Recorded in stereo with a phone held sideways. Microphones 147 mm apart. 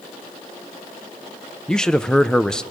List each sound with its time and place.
1.7 s a man speaking: 5° left (ahead or behind), 0.7 m